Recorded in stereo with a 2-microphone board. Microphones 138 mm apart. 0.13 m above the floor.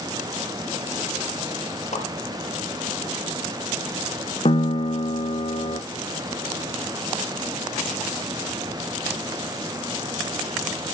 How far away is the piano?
About 0.9 m.